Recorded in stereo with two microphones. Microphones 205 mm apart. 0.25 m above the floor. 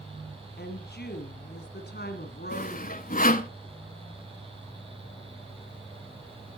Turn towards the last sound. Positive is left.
turn(degrees=45)  # may be behind; listen again after turning